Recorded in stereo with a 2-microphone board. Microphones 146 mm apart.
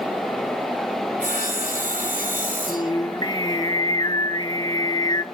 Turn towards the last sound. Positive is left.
turn(degrees=30)  # may be behind; listen again after turning